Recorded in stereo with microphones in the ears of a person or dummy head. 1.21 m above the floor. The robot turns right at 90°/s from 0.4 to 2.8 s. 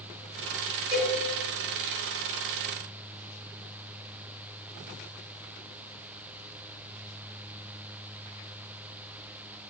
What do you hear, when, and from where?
0.9 s a cowbell: 25° right (ahead or behind), 1.8 m; by 1.2 s 5° right (ahead or behind), 1.8 m